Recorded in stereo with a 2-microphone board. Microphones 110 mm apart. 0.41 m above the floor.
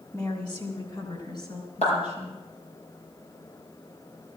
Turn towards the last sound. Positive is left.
turn(degrees=80)